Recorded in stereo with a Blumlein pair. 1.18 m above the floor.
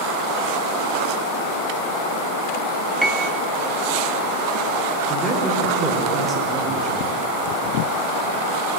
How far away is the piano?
About 0.6 m.